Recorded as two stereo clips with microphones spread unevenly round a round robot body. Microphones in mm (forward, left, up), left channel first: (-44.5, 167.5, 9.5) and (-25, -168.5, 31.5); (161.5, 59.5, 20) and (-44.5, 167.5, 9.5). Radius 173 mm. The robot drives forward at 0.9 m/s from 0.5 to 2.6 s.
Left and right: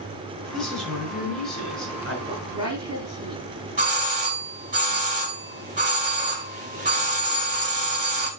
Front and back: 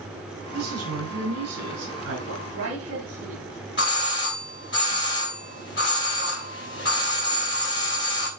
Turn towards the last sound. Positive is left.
turn(degrees=-25)